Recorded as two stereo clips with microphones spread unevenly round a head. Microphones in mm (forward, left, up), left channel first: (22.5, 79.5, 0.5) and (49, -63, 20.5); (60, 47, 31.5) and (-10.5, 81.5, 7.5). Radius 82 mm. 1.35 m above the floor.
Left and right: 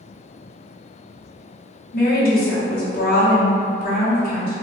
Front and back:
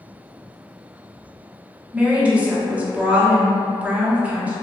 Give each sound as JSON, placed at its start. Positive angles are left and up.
{"t": 1.9, "sound": "a woman speaking", "azimuth_deg": 80, "distance_m": 0.9}